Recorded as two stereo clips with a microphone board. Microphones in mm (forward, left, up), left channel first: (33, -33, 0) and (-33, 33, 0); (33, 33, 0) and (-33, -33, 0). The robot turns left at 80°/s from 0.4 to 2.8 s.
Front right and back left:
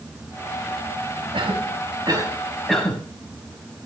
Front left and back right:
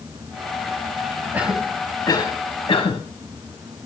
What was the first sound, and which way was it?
A cough, 155° left.